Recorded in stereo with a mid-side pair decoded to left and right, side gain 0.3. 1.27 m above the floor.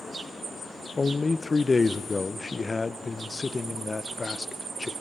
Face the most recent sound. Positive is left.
turn(degrees=35)